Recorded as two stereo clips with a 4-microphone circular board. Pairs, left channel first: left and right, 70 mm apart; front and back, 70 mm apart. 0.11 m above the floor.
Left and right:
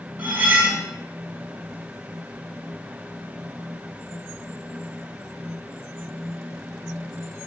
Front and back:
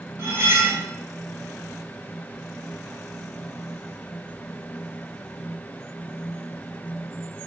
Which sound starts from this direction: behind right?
Cutlery clinking, at 0.2 s.